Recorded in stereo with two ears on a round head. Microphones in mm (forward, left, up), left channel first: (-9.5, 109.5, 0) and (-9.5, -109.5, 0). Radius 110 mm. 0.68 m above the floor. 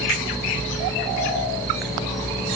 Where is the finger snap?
75° left (ahead or behind), 8 m.